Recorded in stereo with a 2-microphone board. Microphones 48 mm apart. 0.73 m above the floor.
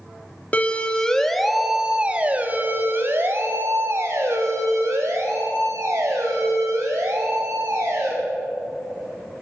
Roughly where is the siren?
Left.